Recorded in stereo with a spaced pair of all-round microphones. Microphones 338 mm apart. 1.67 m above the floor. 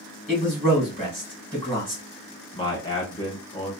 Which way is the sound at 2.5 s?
15° left (ahead or behind).